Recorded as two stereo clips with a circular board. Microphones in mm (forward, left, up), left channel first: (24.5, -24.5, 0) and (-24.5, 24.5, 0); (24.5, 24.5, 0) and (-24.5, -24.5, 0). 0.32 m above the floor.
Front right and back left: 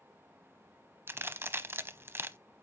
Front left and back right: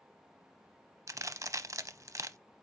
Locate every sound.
1.1 s a crack: 170° right, 0.6 m